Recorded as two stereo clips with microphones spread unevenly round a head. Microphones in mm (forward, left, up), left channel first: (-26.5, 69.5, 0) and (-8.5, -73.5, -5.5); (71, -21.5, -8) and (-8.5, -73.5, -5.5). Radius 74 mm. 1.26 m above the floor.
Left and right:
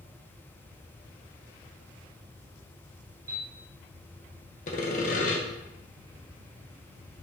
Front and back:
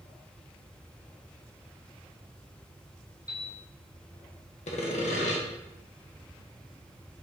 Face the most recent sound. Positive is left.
turn(degrees=55)